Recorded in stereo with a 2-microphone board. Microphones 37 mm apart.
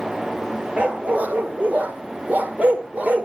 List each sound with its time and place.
0.8 s a dog barking: 40° right (ahead or behind), 1.5 m; by 3.3 s 45° right (ahead or behind), 1.3 m